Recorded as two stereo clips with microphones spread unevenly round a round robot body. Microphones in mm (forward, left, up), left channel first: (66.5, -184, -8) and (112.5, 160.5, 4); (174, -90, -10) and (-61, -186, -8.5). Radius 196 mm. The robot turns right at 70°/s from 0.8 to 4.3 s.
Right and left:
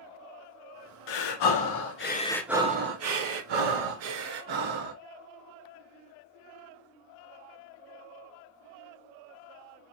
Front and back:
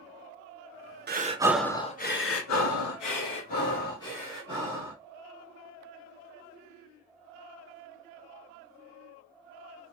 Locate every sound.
1.1 s breathing: 105° right, 0.9 m; by 5.0 s 125° left, 0.9 m